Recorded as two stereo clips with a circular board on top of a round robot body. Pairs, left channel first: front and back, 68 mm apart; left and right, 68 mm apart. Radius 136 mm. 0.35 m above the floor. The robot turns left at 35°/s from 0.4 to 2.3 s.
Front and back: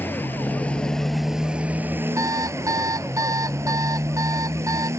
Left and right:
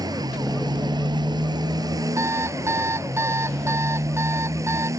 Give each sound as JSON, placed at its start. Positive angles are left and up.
{"t": 0.0, "sound": "a motorcycle", "azimuth_deg": -65}
{"t": 2.2, "sound": "an alarm clock", "azimuth_deg": -135}